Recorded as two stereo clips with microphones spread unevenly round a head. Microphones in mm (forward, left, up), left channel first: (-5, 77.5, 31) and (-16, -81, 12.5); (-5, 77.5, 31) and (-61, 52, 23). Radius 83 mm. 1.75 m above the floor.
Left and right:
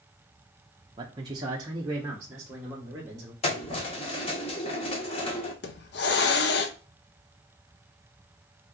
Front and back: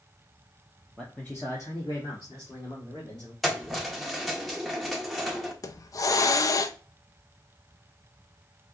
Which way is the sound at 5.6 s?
55° left.